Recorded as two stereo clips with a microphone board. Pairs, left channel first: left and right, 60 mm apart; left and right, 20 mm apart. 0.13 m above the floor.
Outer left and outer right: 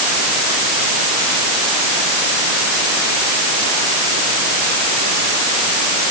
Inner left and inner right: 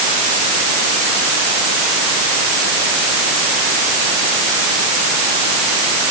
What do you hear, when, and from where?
Only background noise.